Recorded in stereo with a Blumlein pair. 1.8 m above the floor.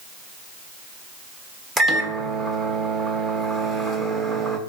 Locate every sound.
1.8 s a microwave: 10° right, 1.1 m